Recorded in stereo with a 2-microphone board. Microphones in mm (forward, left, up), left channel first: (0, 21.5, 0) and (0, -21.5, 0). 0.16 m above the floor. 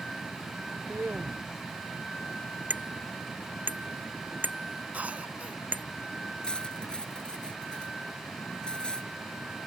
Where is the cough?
35° right (ahead or behind).